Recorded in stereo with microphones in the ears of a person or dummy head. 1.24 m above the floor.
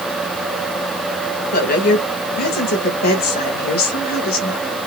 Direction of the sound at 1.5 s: 50° left (ahead or behind).